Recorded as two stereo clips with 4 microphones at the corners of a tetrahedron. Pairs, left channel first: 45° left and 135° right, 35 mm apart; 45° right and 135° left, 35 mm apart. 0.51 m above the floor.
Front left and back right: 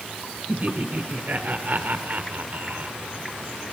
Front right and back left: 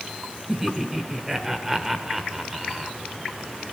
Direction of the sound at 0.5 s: 150° right.